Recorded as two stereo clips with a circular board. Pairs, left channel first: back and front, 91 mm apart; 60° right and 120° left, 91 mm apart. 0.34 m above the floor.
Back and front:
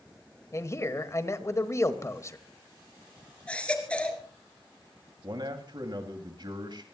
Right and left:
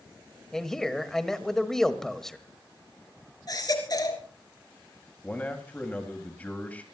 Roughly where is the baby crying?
Right.